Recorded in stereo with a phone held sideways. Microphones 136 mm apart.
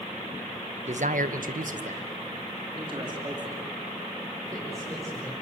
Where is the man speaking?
55° right (ahead or behind), 1.2 m; by 5.3 s 20° right (ahead or behind), 6 m.